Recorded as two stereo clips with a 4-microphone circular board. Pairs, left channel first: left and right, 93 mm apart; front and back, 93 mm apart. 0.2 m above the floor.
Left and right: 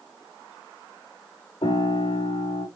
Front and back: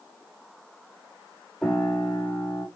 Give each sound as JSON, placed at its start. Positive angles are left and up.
{"t": 1.6, "sound": "a piano", "azimuth_deg": 85, "distance_m": 7.5}